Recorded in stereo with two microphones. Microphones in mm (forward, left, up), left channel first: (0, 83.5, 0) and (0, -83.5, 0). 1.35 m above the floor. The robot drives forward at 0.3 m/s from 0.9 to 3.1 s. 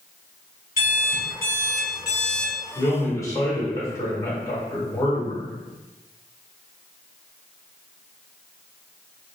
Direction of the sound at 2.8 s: 20° left (ahead or behind).